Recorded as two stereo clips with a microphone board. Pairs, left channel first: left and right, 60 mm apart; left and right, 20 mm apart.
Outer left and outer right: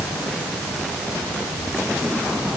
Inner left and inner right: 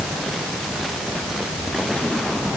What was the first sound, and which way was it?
Only background noise.